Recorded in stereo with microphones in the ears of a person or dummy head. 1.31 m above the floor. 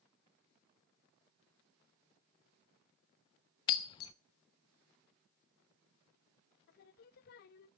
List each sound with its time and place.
3.7 s breaking glass: 30° left (ahead or behind), 0.5 m
6.7 s singing: 50° left (ahead or behind), 0.8 m